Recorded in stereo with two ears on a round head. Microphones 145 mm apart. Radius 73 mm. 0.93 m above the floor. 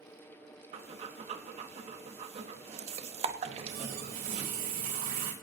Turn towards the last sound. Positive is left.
turn(degrees=-65)  # may be behind; listen again after turning